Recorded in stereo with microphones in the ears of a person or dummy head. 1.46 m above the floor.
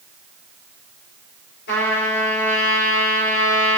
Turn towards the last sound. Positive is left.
turn(degrees=65)  # may be behind; listen again after turning